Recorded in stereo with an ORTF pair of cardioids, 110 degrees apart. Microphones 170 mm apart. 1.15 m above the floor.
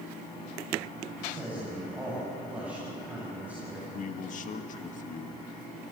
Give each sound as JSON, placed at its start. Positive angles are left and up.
{"t": 1.2, "sound": "a man speaking", "azimuth_deg": -10, "distance_m": 8.5}
{"t": 3.9, "sound": "a man speaking", "azimuth_deg": 50, "distance_m": 1.8}